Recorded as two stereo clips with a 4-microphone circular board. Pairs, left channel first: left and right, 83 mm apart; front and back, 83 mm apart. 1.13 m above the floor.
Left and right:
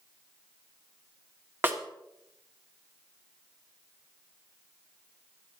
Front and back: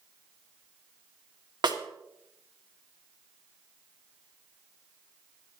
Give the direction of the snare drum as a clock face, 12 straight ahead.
5 o'clock.